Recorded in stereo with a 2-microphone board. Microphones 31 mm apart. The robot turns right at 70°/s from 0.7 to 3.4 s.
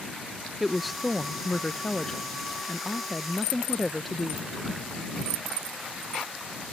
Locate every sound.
0.6 s a woman speaking: 5° right (ahead or behind); by 4.8 s centre (ahead or behind)